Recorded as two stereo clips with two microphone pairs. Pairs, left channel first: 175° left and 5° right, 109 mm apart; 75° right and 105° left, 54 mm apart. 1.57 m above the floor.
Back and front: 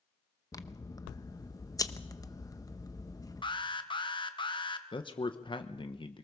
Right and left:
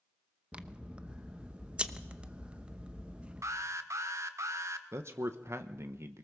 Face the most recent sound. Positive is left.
turn(degrees=140)